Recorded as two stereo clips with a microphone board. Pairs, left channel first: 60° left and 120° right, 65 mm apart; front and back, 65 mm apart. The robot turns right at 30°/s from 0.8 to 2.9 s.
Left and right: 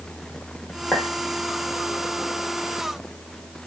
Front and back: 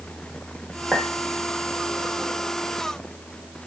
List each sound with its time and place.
0.9 s a clink: 115° left, 0.9 m; by 1.1 s 120° left, 0.9 m